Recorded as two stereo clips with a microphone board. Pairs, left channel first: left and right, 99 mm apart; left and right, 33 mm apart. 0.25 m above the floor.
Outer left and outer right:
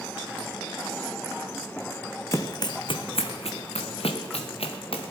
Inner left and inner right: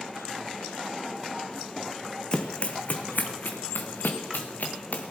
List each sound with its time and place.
2.3 s running footsteps: 30° left (ahead or behind), 0.9 m; by 5.1 s 70° left (ahead or behind), 2 m